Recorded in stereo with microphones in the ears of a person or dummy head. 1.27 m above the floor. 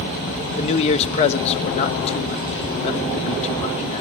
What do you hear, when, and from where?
0.6 s a man speaking: 35° left (ahead or behind), 1.3 m